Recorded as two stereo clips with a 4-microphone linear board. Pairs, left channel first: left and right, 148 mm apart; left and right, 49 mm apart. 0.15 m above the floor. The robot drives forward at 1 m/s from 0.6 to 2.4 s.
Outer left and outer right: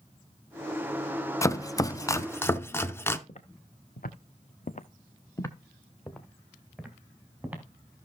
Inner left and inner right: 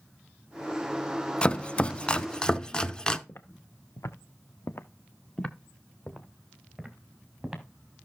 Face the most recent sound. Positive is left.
turn(degrees=-10)  # may be behind; listen again after turning